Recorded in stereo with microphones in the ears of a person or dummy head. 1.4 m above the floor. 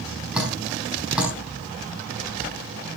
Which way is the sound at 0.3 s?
5° right (ahead or behind).